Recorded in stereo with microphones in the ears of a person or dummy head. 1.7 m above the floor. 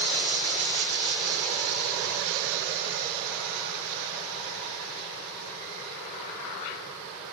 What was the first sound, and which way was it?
Only background noise.